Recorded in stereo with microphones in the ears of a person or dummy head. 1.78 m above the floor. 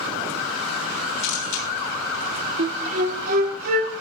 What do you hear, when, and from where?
1.2 s a camera shutter: 60° left (ahead or behind), 3 m
2.6 s a flute: 55° right (ahead or behind), 1.9 m